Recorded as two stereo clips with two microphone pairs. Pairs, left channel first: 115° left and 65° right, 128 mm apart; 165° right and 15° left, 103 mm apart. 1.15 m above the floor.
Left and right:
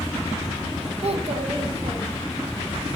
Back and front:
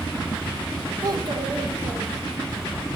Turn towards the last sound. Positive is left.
turn(degrees=-15)